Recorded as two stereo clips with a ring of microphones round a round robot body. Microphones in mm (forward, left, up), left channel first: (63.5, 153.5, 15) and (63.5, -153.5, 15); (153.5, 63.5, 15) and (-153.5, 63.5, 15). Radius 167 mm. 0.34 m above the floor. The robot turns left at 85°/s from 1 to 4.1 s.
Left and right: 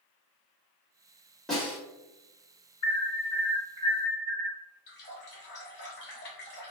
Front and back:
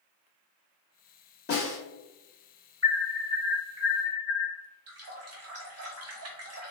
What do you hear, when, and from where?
1.5 s a snare drum: 5° left, 1.5 m; by 1.8 s 20° right, 1.5 m
2.8 s an alarm: 65° left, 1.8 m; by 4.5 s 45° right, 1.8 m
4.9 s a running tap: 145° left, 0.9 m